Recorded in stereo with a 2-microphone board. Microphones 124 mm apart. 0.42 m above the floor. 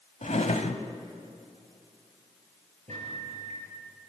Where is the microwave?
75° right (ahead or behind), 7 m.